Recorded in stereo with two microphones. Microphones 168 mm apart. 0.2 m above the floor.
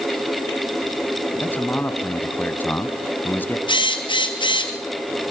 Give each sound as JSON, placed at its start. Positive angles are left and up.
{"t": 1.4, "sound": "a man speaking", "side_deg": 10, "distance_m": 1.3}
{"t": 3.7, "sound": "a drill", "side_deg": 25, "distance_m": 2.0}